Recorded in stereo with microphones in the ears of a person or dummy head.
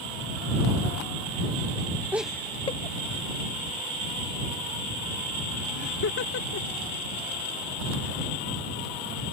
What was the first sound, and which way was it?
Laughter, 10° right (ahead or behind).